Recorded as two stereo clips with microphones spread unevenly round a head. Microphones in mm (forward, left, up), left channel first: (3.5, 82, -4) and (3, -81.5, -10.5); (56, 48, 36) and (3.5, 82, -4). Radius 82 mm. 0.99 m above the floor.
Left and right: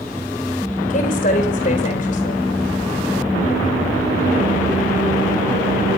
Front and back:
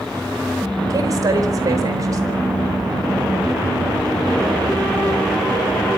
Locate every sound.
0.9 s a woman speaking: 135° left, 4.5 m